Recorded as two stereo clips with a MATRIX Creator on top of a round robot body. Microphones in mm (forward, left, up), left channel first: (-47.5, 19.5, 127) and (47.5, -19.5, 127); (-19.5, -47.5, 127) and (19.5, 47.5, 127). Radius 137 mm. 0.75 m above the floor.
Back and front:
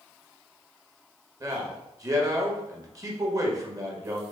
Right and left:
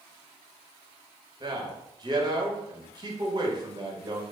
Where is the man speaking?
30° left, 1.4 m.